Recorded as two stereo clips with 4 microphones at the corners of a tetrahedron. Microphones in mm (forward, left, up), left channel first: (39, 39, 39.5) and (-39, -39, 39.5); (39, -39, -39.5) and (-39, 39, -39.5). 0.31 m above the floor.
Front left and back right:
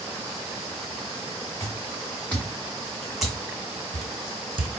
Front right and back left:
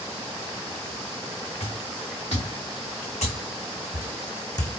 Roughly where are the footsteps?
Ahead right.